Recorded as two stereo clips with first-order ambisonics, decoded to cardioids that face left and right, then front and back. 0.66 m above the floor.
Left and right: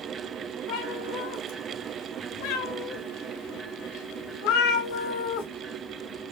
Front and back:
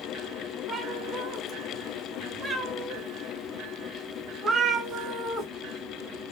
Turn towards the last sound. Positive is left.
turn(degrees=100)